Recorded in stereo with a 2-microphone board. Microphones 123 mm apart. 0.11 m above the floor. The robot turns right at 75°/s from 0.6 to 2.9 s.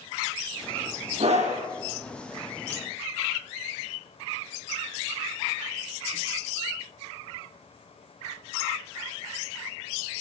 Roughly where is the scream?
Behind right.